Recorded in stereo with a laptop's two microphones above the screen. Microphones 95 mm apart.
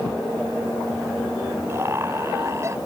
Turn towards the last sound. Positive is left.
turn(degrees=-30)  # may be behind; listen again after turning